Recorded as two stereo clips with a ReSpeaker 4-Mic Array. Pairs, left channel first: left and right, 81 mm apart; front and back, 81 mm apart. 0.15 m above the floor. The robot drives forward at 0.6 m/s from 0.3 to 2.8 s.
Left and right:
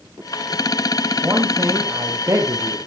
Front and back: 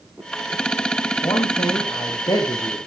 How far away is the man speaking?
About 4 m.